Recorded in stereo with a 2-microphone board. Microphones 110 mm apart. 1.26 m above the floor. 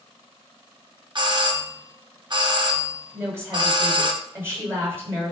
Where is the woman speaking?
25° right (ahead or behind), 6 m.